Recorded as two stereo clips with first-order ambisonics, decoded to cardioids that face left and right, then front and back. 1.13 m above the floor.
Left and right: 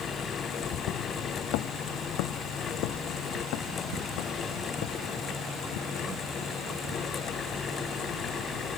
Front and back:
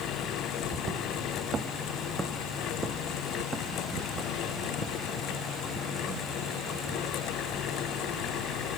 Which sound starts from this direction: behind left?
Footsteps, at 0.6 s.